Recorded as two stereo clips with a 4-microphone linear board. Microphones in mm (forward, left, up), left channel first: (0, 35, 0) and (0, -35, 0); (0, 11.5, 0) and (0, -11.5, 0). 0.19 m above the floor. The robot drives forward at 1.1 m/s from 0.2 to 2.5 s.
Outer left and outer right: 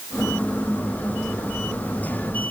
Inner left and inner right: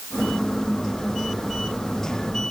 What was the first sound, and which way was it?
Only background noise.